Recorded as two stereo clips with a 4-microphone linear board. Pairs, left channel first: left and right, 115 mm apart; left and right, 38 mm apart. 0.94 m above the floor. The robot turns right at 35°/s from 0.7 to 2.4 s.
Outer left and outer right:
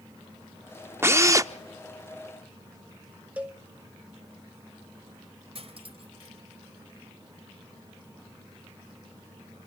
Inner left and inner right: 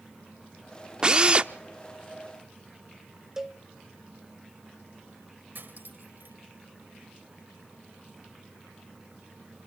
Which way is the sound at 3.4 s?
10° right (ahead or behind).